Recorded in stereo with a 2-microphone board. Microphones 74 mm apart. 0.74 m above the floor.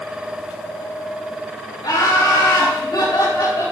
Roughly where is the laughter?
Left.